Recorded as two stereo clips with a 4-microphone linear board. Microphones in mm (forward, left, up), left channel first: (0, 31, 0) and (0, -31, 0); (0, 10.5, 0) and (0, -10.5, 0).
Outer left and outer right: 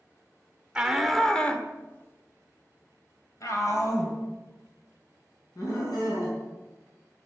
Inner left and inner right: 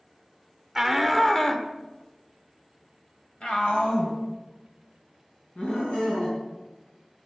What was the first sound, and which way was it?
A shout, 10° right (ahead or behind).